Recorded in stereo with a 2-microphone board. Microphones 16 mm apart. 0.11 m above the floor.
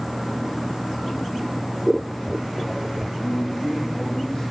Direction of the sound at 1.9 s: 30° right (ahead or behind).